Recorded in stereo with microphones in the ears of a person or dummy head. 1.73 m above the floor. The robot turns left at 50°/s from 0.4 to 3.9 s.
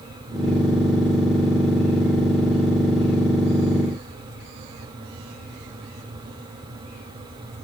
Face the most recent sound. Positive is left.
No sound to turn to.